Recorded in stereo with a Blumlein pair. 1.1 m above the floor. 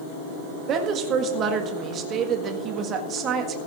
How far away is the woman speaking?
About 1.7 m.